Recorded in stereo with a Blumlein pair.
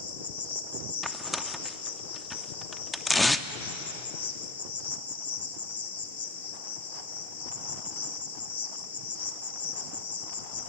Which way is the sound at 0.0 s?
65° left.